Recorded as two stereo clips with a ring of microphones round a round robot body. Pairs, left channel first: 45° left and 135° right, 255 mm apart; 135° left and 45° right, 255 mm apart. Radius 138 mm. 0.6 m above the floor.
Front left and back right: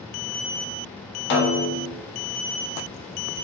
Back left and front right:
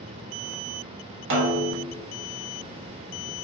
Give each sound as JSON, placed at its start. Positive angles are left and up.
{"t": 1.3, "sound": "a snare drum", "azimuth_deg": 0, "distance_m": 0.8}